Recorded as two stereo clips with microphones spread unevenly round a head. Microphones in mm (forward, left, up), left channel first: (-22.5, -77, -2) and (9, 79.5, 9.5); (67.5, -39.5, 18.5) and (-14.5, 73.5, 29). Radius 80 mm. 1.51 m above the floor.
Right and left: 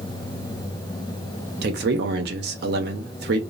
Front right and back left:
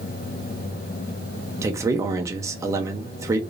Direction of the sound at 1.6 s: 60° left.